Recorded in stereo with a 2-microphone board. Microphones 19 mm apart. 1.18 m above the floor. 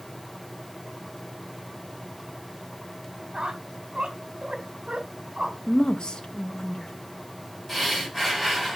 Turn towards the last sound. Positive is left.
turn(degrees=-5)  # may be behind; listen again after turning